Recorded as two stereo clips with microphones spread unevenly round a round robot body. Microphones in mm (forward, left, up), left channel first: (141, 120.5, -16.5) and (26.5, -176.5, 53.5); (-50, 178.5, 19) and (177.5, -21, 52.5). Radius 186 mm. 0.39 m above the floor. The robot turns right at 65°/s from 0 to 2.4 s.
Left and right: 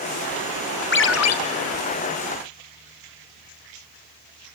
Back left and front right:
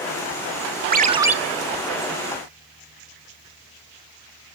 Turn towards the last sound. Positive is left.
turn(degrees=115)